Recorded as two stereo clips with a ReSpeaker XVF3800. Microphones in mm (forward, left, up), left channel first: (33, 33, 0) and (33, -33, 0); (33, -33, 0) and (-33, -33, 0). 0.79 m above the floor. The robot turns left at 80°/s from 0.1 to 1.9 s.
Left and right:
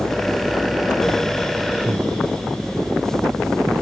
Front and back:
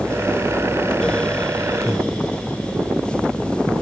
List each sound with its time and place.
1.9 s breathing: 85° right